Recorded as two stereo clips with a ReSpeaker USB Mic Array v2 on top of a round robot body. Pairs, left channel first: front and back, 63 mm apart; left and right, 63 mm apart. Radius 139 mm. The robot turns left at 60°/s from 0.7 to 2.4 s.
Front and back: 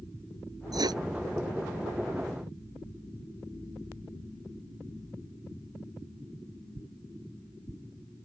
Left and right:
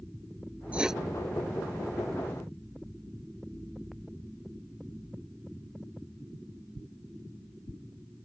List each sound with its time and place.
0.7 s writing: 160° right; by 1.0 s straight behind